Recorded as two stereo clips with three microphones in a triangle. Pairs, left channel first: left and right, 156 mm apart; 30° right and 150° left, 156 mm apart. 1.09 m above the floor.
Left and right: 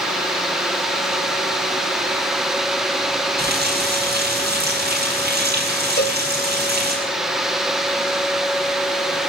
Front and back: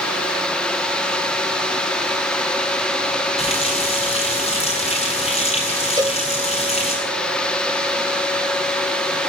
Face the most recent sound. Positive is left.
turn(degrees=85)